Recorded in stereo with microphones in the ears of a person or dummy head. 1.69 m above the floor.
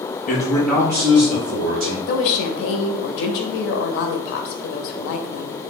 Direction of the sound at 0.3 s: 40° left (ahead or behind).